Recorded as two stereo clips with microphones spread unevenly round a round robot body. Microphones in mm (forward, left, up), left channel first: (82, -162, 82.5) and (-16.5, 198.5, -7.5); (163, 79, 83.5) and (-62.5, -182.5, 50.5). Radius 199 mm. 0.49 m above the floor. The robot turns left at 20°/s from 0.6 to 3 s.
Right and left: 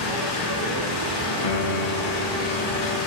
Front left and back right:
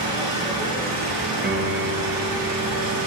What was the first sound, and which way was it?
An engine running, 60° right.